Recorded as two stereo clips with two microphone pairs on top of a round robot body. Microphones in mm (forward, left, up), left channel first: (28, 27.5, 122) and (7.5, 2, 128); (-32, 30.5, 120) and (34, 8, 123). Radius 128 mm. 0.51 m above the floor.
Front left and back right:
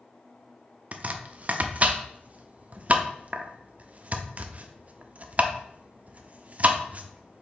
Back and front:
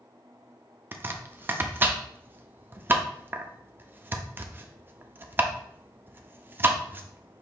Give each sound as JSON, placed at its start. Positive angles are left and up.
{"t": 0.9, "sound": "chopping", "azimuth_deg": -80, "distance_m": 0.5}